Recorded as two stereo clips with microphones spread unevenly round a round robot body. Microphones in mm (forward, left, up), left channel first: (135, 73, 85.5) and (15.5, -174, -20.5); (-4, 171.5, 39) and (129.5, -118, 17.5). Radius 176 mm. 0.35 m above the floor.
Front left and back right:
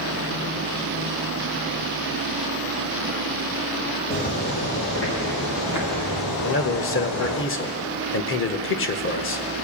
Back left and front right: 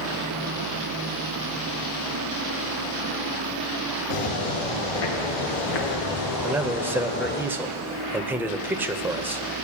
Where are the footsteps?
130° left, 3.5 m; by 7.4 s 50° left, 2.5 m.